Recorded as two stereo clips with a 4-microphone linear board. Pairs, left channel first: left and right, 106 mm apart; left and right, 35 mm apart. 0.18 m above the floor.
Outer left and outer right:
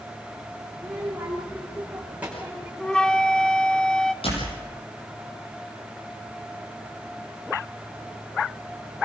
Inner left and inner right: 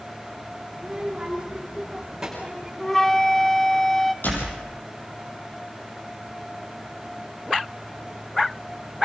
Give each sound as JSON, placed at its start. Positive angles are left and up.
{"t": 0.8, "sound": "a child speaking", "side_deg": -15, "distance_m": 7.5}
{"t": 2.8, "sound": "a flute", "side_deg": 5, "distance_m": 1.0}
{"t": 4.2, "sound": "a door slam", "side_deg": 70, "distance_m": 5.5}